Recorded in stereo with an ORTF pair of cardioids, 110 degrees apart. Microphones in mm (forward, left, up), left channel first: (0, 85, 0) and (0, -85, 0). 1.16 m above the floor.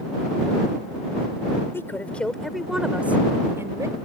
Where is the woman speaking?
15° left; by 4.0 s 20° right.